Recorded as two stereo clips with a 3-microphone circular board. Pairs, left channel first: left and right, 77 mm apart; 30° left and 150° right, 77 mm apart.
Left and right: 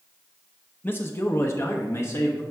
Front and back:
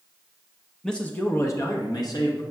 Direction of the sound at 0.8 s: 105° left.